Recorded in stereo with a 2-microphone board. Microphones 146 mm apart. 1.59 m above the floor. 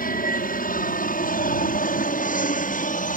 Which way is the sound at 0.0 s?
70° left (ahead or behind).